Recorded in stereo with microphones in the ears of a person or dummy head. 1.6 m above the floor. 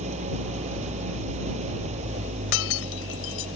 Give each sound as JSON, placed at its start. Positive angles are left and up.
{"t": 0.0, "sound": "an engine running", "side_deg": -40}
{"t": 2.5, "sound": "breaking glass", "side_deg": 75}